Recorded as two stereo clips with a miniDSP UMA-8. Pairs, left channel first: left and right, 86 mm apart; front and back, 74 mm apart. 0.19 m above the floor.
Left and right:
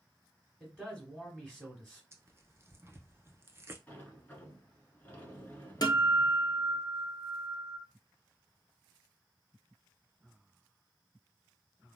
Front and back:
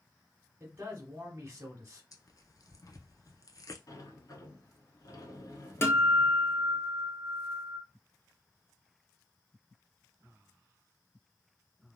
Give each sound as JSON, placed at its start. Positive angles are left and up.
{"t": 0.6, "sound": "a man speaking", "azimuth_deg": 165, "distance_m": 1.1}
{"t": 2.1, "sound": "tearing paper", "azimuth_deg": -35, "distance_m": 0.5}
{"t": 3.9, "sound": "a sliding door", "azimuth_deg": 25, "distance_m": 0.9}
{"t": 5.8, "sound": "a guitar", "azimuth_deg": 55, "distance_m": 0.7}